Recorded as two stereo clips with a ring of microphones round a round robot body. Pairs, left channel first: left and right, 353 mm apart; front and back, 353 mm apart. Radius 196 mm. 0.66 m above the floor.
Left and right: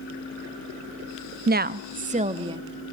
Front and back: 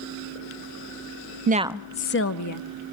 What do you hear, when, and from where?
1.5 s a woman speaking: 135° right, 0.6 m; by 2.7 s 15° right, 0.9 m